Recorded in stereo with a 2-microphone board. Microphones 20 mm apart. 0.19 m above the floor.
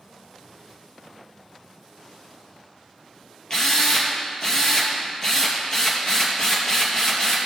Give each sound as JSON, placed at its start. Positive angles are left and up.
{"t": 3.5, "sound": "a drill", "side_deg": 35, "distance_m": 3.0}